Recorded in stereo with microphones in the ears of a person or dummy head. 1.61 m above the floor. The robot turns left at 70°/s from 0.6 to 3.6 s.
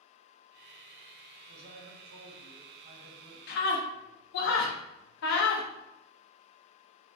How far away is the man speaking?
About 0.8 m.